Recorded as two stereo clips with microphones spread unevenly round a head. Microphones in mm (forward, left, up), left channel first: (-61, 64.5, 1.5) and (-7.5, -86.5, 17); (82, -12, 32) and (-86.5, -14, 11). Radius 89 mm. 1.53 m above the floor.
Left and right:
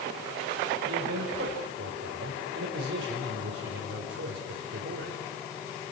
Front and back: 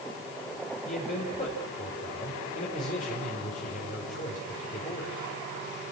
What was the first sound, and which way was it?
A man speaking, 40° right.